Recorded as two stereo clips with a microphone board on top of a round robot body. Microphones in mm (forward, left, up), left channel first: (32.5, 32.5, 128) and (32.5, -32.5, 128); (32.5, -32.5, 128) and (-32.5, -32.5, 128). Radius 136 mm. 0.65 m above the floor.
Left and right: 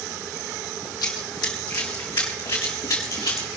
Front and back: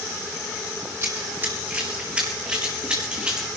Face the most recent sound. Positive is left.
turn(degrees=105)